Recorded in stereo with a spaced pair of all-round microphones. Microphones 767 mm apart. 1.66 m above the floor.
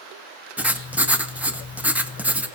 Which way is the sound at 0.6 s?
Centre (ahead or behind).